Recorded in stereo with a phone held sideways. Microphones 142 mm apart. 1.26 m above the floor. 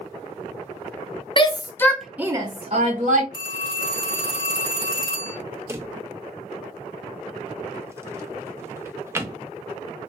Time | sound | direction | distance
1.4 | a shout | 35° left (ahead or behind) | 0.7 m
3.3 | a phone ringing | 35° left (ahead or behind) | 1.9 m
5.7 | a drawer | 15° right (ahead or behind) | 0.5 m